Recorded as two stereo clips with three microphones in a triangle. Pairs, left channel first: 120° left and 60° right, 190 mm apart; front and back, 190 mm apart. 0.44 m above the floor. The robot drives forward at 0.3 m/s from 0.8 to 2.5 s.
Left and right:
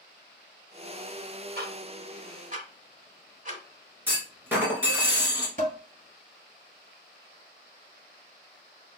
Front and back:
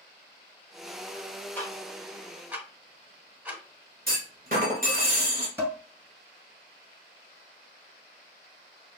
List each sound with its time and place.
1.6 s ticking: 80° right, 0.9 m; by 3.6 s 100° right, 0.8 m
4.1 s a clunk: 140° right, 1.6 m
5.6 s dishes clattering: 105° right, 1.8 m